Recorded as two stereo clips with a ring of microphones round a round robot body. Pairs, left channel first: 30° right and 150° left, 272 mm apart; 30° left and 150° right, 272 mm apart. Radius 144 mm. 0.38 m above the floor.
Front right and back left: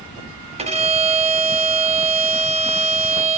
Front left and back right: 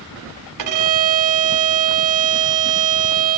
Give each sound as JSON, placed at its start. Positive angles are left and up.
{"t": 0.6, "sound": "a violin", "azimuth_deg": -140, "distance_m": 1.1}